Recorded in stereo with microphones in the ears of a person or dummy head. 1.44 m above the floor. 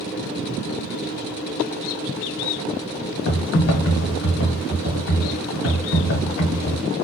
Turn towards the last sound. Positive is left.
turn(degrees=70)  # may be behind; listen again after turning